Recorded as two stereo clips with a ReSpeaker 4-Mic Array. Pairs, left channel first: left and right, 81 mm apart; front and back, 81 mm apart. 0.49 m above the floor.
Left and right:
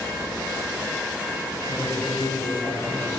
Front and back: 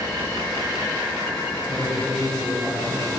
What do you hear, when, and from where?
1.7 s a man speaking: 80° left, 3 m